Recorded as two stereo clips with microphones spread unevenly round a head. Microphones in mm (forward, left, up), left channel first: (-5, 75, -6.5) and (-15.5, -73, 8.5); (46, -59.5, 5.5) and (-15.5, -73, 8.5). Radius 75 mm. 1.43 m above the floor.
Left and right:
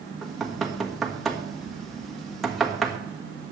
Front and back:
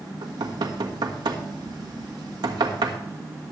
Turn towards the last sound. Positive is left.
turn(degrees=175)